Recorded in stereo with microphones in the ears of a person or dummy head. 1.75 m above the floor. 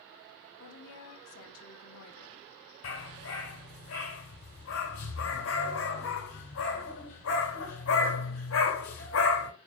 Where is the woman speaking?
65° left (ahead or behind), 1.7 m.